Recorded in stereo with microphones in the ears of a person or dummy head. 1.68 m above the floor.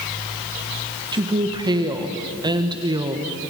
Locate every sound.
1.1 s a woman speaking: 20° right (ahead or behind), 1.3 m